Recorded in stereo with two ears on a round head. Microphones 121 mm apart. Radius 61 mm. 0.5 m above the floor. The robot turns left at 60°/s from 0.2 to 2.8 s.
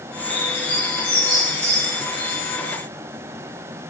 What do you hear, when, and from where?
0.3 s a bird: 35° left (ahead or behind), 2.5 m; by 2.4 s 90° right, 2.5 m